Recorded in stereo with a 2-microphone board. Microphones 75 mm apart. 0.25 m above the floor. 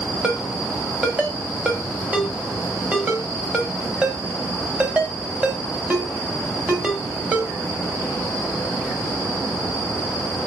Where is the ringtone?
15° right (ahead or behind), 0.7 m.